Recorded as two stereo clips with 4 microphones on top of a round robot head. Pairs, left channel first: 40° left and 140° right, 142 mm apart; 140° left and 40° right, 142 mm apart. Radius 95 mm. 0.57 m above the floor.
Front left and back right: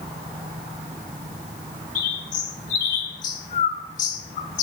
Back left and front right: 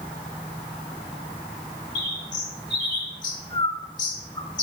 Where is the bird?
80° left, 1.1 m.